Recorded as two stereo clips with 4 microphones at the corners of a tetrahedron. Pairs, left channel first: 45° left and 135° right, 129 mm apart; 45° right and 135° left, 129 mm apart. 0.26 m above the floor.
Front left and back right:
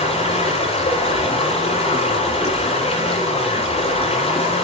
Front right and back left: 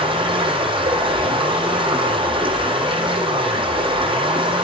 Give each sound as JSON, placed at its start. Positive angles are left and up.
{"t": 0.0, "sound": "running water", "azimuth_deg": 85, "distance_m": 9.0}